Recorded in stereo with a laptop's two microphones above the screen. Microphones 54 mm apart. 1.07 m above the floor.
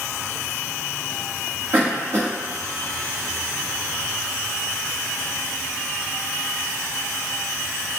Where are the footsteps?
No footsteps in this recording.